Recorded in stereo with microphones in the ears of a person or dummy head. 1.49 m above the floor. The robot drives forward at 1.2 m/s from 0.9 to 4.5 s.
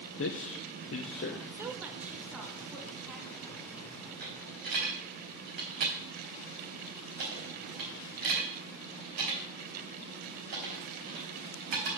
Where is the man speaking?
60° left (ahead or behind), 0.6 m; by 1.4 s 35° left (ahead or behind), 0.8 m.